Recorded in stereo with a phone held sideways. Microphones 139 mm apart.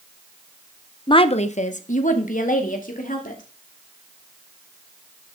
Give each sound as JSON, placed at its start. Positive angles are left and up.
{"t": 1.1, "sound": "a woman speaking", "side_deg": 35, "distance_m": 0.6}